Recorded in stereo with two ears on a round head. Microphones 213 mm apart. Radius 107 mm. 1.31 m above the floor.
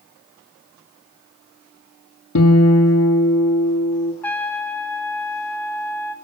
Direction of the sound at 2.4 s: 70° left (ahead or behind).